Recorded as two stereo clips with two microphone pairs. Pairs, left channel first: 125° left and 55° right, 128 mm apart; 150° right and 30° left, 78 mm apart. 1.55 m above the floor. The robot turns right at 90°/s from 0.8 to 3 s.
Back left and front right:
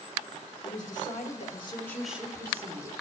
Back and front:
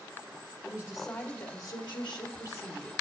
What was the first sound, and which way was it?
A woman speaking, 100° left.